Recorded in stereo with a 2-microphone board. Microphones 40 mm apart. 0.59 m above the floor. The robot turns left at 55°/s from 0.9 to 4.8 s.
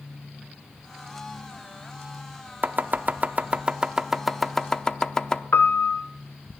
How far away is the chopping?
About 0.6 m.